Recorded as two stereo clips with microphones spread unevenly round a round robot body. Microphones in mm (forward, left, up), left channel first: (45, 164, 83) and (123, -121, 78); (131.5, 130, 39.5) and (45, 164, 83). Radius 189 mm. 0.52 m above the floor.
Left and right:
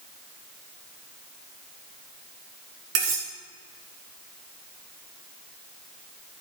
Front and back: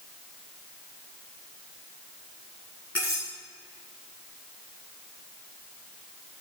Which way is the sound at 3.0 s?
100° right.